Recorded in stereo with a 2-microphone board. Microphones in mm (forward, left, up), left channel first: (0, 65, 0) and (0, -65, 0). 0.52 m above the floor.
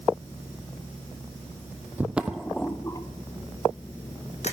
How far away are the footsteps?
About 0.8 m.